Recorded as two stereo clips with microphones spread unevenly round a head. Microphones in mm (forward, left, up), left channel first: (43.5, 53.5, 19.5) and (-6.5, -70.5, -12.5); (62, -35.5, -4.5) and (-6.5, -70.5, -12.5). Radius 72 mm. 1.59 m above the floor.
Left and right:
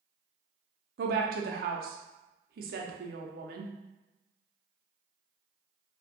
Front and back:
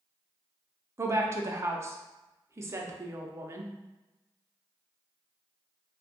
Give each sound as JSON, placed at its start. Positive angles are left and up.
{"t": 1.0, "sound": "a woman speaking", "azimuth_deg": -100, "distance_m": 0.6}